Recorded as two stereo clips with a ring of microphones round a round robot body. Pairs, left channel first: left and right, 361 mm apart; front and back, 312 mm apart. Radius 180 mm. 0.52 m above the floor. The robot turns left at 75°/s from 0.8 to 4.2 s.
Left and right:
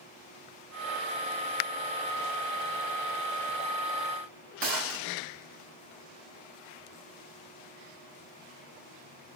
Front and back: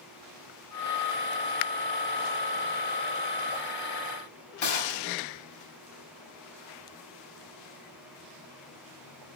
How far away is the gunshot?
About 1.7 m.